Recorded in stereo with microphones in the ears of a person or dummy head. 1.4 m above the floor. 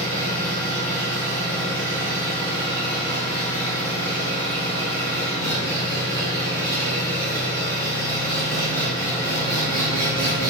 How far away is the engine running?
About 2.5 m.